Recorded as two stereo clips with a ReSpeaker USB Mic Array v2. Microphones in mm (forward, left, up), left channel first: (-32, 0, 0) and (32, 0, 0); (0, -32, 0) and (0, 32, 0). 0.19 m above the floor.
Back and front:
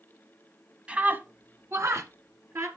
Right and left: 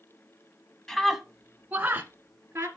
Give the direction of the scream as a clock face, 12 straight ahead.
1 o'clock.